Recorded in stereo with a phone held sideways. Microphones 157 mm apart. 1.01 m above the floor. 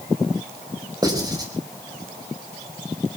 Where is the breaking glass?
I don't hear breaking glass.